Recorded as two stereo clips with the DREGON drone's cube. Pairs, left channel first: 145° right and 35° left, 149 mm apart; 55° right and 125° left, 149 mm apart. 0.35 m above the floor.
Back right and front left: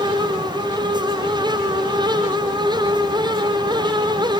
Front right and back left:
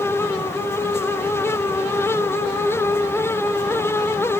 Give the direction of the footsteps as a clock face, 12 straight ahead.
No footsteps in this recording.